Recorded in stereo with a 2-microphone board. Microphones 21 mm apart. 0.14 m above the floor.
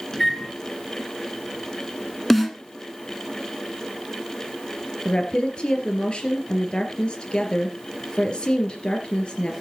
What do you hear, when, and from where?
0.1 s a microwave: 20° left (ahead or behind), 1.6 m
2.3 s a snare drum: 10° left (ahead or behind), 1.4 m
5.0 s a woman speaking: 45° left (ahead or behind), 2.5 m